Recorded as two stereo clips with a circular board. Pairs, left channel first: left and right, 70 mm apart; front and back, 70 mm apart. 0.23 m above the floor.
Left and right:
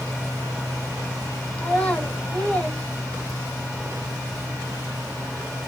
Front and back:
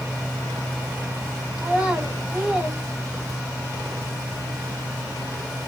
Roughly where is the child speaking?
Behind left.